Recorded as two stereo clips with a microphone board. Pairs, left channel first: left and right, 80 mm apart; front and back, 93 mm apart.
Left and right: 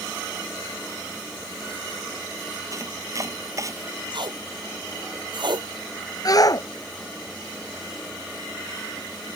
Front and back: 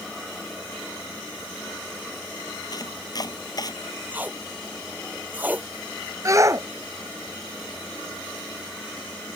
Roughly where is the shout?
Behind left.